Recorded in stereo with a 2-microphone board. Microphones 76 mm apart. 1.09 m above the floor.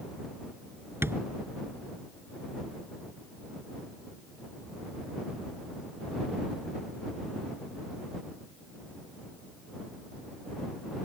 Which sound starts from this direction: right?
Tapping, at 1.0 s.